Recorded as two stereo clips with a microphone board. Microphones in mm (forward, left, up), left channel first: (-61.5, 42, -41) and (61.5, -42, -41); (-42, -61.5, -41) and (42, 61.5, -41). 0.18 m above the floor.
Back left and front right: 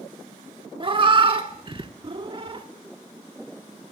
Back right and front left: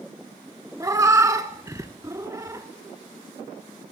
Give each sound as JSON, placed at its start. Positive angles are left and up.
{"t": 0.8, "sound": "a cat meowing", "azimuth_deg": 0, "distance_m": 0.5}